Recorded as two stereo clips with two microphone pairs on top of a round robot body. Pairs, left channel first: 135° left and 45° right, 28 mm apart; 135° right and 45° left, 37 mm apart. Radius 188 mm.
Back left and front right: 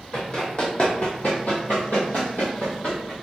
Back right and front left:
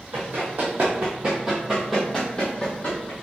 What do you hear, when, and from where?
0.1 s running footsteps: 75° left, 1.4 m; by 3.1 s 175° right, 1.2 m